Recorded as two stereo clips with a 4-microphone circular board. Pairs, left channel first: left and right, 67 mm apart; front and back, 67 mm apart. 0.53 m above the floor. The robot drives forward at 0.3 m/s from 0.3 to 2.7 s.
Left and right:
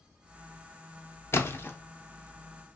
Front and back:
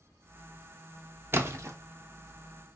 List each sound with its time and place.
1.3 s a splash: 135° left, 0.7 m; by 1.8 s 145° left, 0.7 m